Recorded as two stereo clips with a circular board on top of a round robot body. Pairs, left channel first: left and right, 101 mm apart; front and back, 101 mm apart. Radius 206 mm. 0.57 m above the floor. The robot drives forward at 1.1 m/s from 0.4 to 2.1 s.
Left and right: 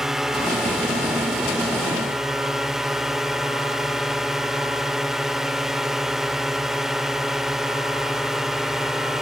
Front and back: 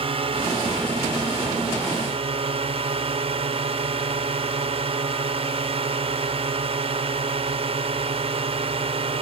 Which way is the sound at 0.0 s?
175° right.